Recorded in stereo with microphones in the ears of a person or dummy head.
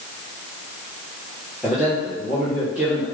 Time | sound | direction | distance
1.6 | a man speaking | 5° right (ahead or behind) | 2.5 m